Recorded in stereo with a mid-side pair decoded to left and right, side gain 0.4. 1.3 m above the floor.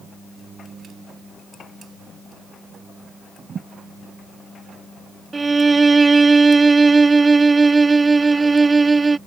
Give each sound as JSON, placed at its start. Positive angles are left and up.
{"t": 3.5, "sound": "a thud", "azimuth_deg": -55}
{"t": 5.3, "sound": "a violin", "azimuth_deg": -30}